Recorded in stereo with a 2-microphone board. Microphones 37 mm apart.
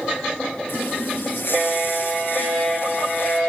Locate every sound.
0.7 s a running tap: 75° left (ahead or behind), 4.5 m